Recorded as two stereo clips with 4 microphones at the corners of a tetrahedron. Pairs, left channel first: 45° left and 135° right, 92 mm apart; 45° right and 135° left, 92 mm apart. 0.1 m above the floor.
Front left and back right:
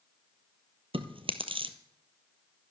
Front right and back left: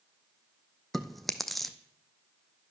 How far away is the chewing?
About 0.9 m.